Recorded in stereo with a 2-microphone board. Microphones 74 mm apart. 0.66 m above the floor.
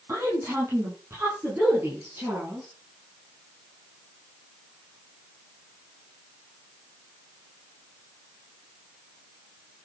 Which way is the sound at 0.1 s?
35° right (ahead or behind).